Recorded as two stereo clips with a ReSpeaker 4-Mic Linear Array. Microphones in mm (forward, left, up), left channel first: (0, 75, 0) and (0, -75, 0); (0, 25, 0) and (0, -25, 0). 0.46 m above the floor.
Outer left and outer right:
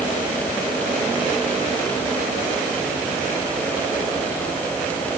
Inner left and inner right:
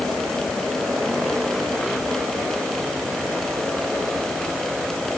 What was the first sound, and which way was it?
Only background noise.